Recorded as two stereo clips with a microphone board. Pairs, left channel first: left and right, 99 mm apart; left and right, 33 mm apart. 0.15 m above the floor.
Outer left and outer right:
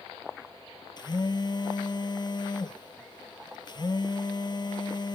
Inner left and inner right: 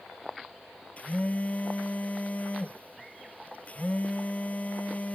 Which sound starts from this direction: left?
A phone buzzing, at 1.0 s.